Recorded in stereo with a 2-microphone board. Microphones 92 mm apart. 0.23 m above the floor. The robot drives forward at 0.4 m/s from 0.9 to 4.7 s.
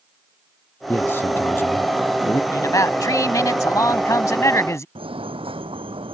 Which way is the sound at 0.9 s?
25° left (ahead or behind).